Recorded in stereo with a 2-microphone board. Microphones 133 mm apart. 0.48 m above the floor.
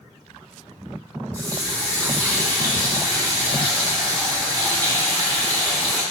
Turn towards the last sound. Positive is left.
turn(degrees=-25)  # may be behind; listen again after turning